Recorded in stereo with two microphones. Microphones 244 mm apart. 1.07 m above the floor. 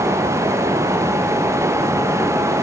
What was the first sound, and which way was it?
Only background noise.